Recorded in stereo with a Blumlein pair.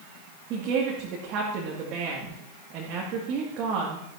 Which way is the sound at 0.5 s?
35° right.